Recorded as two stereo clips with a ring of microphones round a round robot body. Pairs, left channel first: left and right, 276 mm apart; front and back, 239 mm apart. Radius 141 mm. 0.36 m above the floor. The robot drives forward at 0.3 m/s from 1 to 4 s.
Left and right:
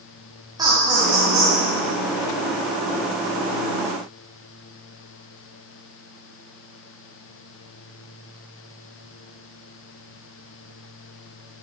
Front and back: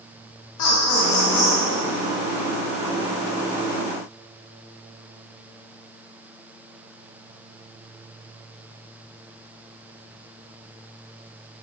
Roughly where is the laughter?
Ahead.